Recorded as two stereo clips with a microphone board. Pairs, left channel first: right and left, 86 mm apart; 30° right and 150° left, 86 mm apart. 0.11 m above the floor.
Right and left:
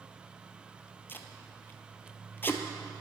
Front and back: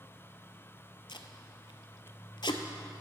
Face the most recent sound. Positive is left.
turn(degrees=-25)